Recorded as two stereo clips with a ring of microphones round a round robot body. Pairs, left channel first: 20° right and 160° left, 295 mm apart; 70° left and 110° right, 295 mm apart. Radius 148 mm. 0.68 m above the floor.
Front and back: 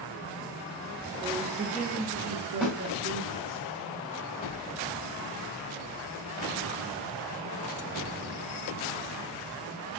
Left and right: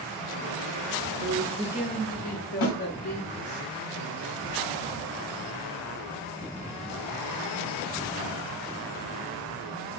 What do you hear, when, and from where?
1.2 s a man speaking: 140° right, 1.0 m; by 3.6 s 85° left, 1.8 m
2.6 s a snare drum: 65° left, 1.9 m